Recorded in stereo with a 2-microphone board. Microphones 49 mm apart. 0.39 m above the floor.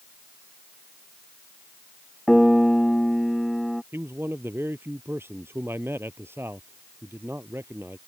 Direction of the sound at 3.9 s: 55° right (ahead or behind).